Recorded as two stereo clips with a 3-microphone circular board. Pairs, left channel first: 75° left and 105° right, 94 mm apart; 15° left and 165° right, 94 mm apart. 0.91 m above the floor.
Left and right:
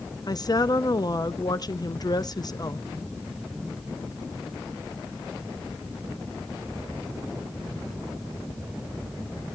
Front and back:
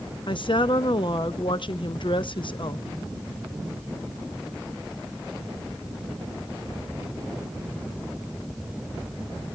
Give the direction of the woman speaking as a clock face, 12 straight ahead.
11 o'clock.